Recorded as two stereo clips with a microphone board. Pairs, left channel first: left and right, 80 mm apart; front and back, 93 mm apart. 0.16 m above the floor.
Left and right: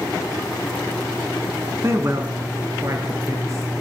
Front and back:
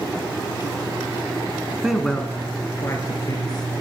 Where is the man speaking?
105° right, 1.2 m; by 3.7 s 40° right, 2.5 m.